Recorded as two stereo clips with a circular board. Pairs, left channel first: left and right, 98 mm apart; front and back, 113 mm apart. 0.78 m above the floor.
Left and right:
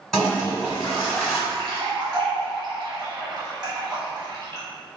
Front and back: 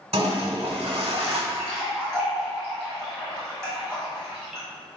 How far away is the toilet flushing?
About 0.9 m.